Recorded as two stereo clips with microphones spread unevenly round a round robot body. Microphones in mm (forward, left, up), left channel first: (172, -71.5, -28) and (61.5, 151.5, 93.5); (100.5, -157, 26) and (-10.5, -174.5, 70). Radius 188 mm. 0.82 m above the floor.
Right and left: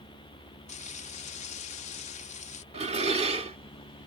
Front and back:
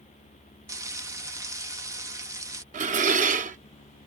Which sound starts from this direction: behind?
Dishes clattering, at 2.7 s.